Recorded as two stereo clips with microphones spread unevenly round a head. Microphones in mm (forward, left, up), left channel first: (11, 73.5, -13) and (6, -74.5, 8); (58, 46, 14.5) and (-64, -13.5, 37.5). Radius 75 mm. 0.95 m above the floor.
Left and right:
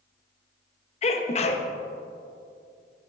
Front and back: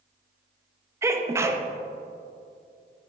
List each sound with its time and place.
1.0 s a sneeze: 130° left, 0.7 m